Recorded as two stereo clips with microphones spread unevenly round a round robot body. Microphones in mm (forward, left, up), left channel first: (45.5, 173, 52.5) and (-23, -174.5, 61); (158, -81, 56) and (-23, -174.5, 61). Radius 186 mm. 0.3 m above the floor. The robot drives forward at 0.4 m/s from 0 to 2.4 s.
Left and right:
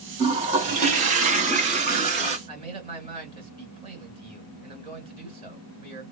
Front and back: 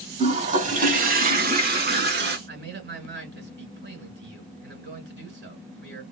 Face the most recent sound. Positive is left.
turn(degrees=-175)